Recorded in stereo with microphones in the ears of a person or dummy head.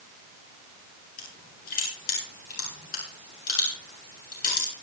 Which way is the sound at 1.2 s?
55° left (ahead or behind).